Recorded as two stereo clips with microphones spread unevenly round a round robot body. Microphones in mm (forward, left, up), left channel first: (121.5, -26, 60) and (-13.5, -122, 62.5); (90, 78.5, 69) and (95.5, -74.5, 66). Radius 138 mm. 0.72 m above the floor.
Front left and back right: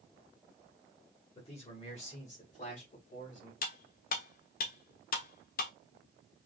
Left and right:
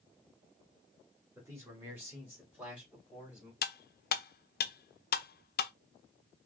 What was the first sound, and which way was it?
A man speaking, 15° right.